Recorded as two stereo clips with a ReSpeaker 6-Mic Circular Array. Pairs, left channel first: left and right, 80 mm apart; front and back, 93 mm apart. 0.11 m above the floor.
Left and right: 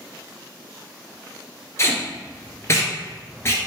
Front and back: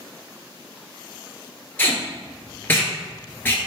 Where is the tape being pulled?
55° left, 1.4 m.